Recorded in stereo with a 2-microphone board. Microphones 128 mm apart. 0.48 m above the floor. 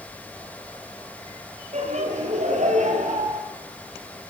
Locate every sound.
1.7 s laughter: 60° right (ahead or behind), 9.5 m; by 3.4 s 75° right (ahead or behind), 9 m